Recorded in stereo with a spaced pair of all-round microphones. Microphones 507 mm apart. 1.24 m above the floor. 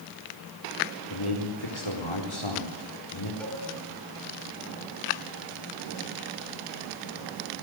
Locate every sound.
1.1 s a man speaking: 60° left (ahead or behind), 4 m
3.4 s a cowbell: centre (ahead or behind), 3.5 m